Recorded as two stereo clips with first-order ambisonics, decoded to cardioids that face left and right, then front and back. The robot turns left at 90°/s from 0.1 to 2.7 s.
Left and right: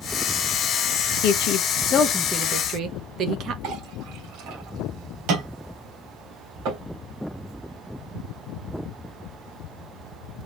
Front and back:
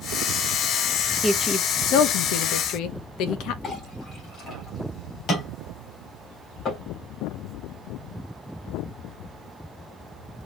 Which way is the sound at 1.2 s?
95° left.